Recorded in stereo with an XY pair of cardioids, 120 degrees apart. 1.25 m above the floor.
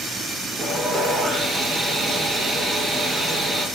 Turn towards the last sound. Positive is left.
turn(degrees=-20)